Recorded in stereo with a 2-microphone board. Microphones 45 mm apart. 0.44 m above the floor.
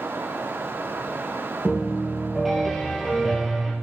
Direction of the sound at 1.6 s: Centre (ahead or behind).